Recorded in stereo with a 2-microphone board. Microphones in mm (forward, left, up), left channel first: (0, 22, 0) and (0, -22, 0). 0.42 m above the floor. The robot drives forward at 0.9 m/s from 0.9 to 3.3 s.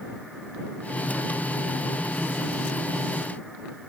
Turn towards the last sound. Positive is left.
No sound to turn to.